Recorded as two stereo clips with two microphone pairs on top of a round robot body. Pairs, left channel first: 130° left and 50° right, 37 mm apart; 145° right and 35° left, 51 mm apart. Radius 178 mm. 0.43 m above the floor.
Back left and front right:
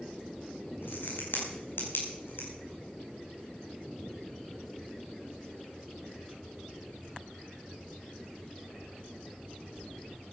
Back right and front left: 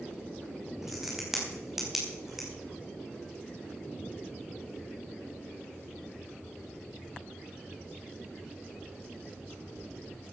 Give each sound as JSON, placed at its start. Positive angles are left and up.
{"t": 0.8, "sound": "a crack", "azimuth_deg": 115, "distance_m": 5.0}